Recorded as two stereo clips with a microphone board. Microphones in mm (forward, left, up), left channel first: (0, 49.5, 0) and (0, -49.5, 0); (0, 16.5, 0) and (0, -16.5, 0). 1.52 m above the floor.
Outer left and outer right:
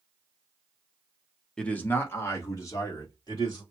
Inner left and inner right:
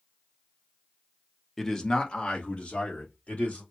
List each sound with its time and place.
1.6 s a man speaking: 10° left (ahead or behind), 1.0 m; by 3.6 s 40° left (ahead or behind), 3 m